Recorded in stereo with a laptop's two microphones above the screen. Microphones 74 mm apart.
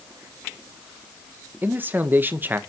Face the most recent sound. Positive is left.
turn(degrees=-25)  # may be behind; listen again after turning